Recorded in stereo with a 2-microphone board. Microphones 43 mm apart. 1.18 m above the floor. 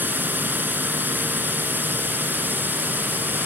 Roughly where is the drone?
Right.